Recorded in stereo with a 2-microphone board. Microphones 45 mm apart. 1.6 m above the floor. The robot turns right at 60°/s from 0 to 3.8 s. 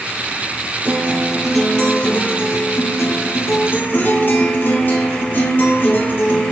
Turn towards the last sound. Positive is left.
turn(degrees=140)